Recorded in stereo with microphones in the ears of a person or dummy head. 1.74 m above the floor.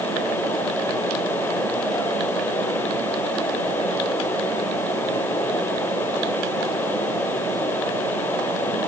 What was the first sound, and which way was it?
Only background noise.